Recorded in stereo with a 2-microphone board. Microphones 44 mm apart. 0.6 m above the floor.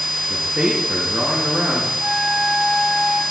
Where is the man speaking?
20° right (ahead or behind), 6 m.